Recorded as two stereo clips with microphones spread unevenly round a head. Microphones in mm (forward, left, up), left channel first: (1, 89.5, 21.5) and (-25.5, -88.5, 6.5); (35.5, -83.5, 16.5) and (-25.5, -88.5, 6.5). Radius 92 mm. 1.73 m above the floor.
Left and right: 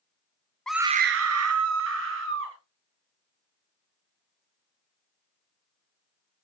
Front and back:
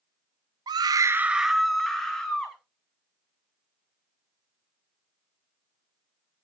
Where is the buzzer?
I don't hear a buzzer.